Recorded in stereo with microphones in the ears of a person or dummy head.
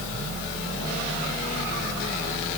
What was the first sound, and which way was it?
Only background noise.